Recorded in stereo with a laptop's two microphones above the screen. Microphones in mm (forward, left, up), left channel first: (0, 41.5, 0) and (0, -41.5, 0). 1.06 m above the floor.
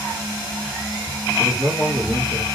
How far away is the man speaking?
About 1.3 m.